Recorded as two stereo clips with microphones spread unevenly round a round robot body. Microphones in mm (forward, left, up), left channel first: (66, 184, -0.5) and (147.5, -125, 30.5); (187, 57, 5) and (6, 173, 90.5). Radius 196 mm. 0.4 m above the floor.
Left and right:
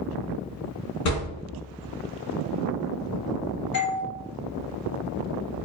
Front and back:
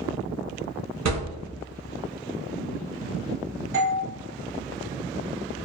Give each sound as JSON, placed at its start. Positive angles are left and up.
{"t": 1.1, "sound": "a thud", "azimuth_deg": 145, "distance_m": 0.8}
{"t": 3.7, "sound": "a doorbell", "azimuth_deg": 140, "distance_m": 1.8}